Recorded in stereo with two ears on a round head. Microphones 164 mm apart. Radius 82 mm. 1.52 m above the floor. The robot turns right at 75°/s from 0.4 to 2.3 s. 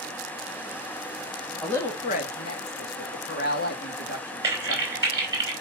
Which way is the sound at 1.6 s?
5° left (ahead or behind).